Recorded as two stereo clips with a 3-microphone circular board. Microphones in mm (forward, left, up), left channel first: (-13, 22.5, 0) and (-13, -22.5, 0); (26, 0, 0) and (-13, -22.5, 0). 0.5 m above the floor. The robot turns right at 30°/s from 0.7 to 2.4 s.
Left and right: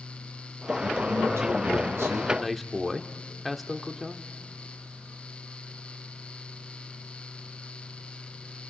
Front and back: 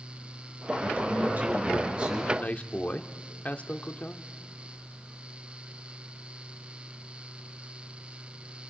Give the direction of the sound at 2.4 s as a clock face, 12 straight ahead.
12 o'clock.